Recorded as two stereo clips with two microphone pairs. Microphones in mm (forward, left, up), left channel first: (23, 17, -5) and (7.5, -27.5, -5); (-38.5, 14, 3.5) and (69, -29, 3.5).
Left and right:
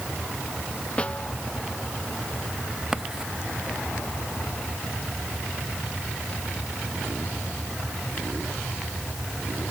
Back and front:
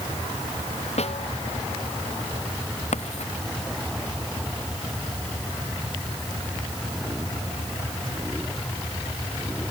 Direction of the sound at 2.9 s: 170° left.